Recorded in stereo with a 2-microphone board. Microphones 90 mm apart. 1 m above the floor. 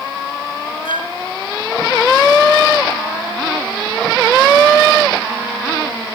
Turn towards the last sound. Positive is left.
turn(degrees=80)